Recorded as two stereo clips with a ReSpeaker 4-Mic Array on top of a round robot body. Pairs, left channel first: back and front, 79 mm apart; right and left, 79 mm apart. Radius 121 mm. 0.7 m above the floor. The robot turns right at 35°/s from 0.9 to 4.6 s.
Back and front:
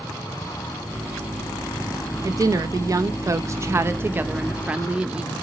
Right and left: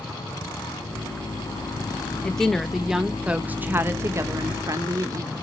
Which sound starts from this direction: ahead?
A woman speaking, at 2.2 s.